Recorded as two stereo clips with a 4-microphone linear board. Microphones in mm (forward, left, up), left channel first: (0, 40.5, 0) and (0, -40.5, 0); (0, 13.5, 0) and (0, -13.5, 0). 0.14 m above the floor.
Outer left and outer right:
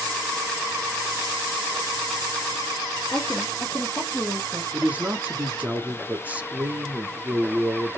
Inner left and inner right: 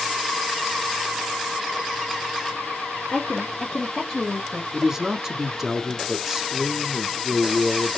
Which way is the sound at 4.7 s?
20° right (ahead or behind).